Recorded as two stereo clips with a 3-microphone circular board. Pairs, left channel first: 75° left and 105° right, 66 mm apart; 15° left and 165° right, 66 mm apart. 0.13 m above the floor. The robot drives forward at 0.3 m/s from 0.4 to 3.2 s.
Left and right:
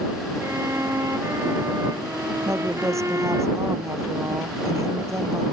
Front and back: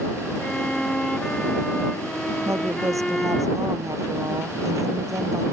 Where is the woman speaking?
135° right; by 5.4 s 140° right.